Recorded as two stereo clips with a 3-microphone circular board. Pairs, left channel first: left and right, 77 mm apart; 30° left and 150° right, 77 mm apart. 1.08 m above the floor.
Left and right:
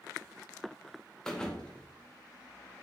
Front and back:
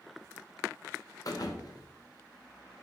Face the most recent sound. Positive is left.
turn(degrees=10)